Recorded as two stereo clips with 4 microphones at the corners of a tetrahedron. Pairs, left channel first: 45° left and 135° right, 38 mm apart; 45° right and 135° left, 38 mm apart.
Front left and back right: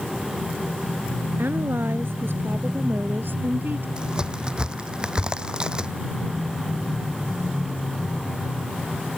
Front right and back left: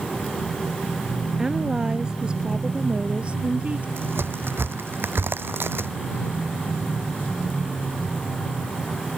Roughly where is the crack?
Behind.